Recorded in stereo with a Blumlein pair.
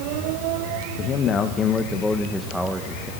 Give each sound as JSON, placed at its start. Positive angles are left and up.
{"t": 1.0, "sound": "a man speaking", "azimuth_deg": 30, "distance_m": 1.8}